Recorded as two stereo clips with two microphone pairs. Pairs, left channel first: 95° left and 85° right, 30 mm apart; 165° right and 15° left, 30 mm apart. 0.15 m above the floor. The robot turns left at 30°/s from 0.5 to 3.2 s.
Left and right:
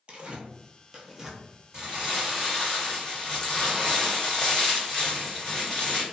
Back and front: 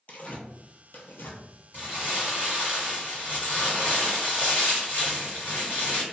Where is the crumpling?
145° right, 1.4 m; by 6.0 s 170° left, 1.4 m.